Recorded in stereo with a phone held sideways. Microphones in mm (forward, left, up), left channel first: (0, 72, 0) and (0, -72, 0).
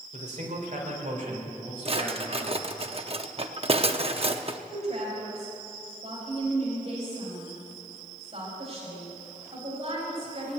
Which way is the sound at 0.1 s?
60° right (ahead or behind).